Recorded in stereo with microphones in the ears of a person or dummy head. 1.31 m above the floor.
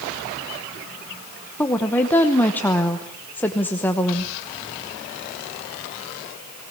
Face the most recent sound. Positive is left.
turn(degrees=15)  # may be behind; listen again after turning